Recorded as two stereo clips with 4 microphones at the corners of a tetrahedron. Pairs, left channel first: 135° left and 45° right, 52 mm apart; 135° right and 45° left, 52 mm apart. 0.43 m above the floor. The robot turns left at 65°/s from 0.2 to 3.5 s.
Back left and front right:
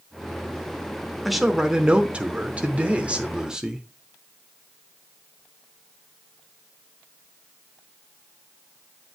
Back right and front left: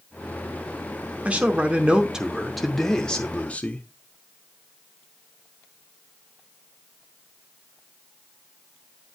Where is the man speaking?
45° left, 0.8 m; by 3.9 s 100° right, 0.8 m.